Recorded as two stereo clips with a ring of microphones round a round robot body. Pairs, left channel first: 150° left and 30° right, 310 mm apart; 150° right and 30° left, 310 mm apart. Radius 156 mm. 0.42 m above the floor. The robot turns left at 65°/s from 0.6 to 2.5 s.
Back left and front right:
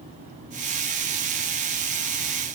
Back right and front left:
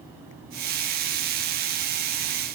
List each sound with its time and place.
Only background noise.